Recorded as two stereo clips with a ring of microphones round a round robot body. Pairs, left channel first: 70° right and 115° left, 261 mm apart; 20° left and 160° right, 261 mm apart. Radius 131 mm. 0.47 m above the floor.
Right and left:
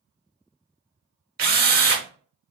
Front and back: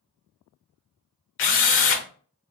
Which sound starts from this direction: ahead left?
A drill, at 1.4 s.